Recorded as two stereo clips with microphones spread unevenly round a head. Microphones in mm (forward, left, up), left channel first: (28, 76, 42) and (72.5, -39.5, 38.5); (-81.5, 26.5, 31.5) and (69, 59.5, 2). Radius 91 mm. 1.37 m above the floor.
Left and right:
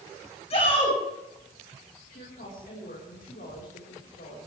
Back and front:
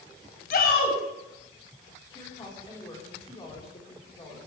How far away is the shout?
About 7 m.